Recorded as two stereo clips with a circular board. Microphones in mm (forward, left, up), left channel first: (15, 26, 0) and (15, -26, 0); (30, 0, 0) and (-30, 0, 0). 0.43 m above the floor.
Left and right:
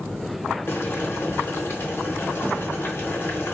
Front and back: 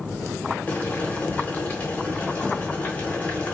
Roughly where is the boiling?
Ahead left.